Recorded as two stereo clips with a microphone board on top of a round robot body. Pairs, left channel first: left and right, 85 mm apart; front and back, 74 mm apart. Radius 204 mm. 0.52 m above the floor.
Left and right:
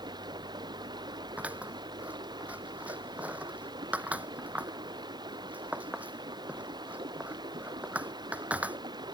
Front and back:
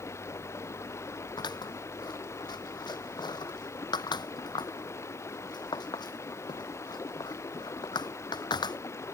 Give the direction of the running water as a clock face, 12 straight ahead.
2 o'clock.